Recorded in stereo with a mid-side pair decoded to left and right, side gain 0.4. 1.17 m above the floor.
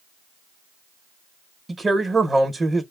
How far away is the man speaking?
About 1.0 m.